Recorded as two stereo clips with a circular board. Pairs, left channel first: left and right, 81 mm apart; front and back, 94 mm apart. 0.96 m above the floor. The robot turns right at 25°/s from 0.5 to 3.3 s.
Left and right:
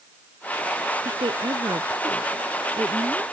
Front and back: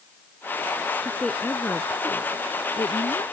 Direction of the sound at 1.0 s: 85° right.